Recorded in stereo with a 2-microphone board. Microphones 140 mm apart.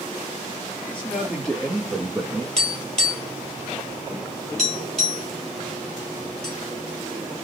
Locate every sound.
0.9 s a man speaking: 15° left (ahead or behind), 2.5 m; by 2.5 s 15° right (ahead or behind), 1.8 m
2.6 s tapping: 5° left (ahead or behind), 2.5 m